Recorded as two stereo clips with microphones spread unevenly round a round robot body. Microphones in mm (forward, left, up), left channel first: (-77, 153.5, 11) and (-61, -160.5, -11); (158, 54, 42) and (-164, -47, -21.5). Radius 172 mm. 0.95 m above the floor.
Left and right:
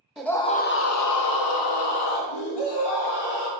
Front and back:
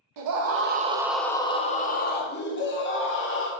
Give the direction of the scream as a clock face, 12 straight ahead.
6 o'clock.